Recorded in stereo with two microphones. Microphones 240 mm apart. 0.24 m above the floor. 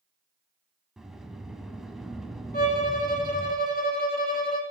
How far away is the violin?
About 1.4 m.